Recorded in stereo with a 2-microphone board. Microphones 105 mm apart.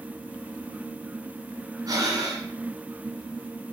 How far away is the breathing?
About 1.8 m.